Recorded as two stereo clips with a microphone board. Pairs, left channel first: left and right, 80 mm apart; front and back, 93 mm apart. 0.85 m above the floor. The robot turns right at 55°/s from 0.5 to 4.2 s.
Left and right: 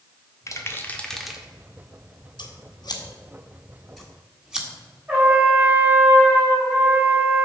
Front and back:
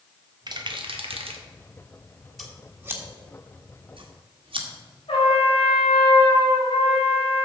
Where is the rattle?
140° left, 1.1 m; by 1.4 s 170° right, 1.1 m.